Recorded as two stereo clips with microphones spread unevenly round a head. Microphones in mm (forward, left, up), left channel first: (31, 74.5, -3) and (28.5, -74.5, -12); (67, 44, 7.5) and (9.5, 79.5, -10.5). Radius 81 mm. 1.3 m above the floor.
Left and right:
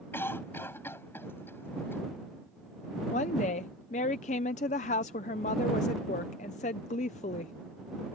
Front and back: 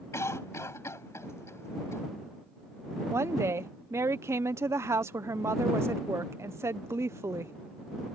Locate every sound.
0.1 s a cough: 15° left
3.1 s a woman speaking: 135° left